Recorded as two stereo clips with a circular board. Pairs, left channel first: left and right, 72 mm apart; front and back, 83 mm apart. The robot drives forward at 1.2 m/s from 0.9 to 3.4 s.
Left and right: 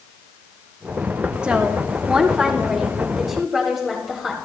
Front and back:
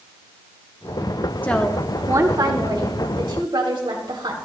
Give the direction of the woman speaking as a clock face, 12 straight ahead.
1 o'clock.